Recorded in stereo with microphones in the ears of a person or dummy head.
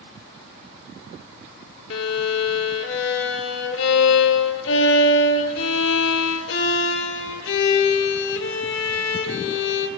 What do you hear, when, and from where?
1.9 s a violin: 65° left (ahead or behind), 1.1 m